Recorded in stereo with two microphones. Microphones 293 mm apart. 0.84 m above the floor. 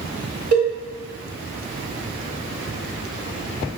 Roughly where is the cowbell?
Right.